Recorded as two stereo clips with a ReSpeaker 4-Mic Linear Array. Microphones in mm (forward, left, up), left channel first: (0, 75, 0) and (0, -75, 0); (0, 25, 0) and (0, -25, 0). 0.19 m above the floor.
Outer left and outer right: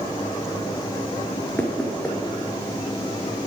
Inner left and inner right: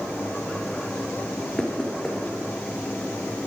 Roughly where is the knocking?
Centre.